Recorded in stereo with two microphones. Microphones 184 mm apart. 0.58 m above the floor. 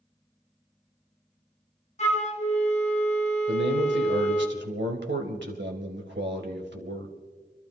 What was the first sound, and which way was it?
A flute, 40° left (ahead or behind).